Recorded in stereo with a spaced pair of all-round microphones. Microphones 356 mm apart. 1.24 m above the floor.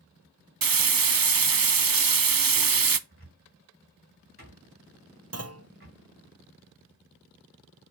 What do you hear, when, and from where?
0.6 s frying: 70° right (ahead or behind), 0.6 m
3.1 s a cupboard door: 35° right (ahead or behind), 3.5 m
5.3 s a clunk: 45° right (ahead or behind), 0.7 m